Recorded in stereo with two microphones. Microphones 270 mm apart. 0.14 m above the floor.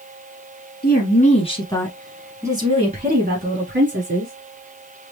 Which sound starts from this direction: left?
A woman speaking, at 0.8 s.